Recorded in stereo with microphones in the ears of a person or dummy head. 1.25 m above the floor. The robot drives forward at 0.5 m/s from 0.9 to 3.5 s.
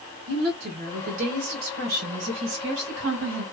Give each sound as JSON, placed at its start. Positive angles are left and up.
{"t": 0.3, "sound": "a woman speaking", "side_deg": -60, "distance_m": 1.4}